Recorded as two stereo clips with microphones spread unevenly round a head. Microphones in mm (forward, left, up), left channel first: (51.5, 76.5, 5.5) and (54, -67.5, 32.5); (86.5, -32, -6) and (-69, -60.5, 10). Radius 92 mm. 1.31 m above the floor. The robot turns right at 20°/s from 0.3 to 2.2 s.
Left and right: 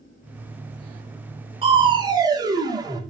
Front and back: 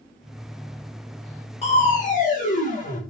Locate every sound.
1.6 s crushing: 40° right, 3 m; by 3.0 s 25° right, 3 m